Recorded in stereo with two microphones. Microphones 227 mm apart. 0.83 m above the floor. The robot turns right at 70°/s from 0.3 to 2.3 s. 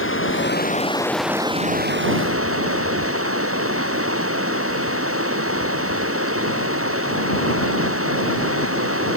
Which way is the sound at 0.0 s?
115° left.